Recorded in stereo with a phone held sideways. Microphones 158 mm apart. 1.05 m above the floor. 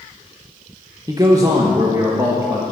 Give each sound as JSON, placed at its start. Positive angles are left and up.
{"t": 1.1, "sound": "a man speaking", "side_deg": -25, "distance_m": 0.9}